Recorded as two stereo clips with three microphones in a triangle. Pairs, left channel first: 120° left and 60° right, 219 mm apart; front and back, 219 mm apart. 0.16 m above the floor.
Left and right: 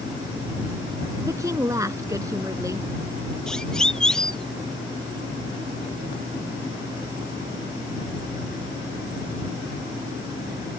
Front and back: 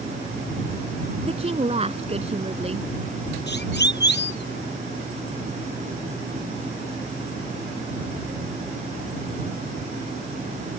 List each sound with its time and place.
1.2 s a woman speaking: 130° right
3.5 s a siren: 35° left